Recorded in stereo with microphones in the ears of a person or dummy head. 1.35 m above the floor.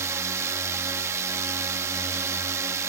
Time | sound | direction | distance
0.0 | a drone | 20° right (ahead or behind) | ?